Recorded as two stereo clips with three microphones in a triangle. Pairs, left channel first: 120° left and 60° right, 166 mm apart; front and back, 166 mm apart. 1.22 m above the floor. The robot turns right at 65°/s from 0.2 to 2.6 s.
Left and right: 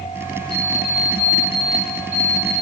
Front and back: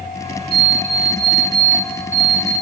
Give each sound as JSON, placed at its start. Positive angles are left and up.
{"t": 0.5, "sound": "an alarm clock", "azimuth_deg": 115, "distance_m": 3.0}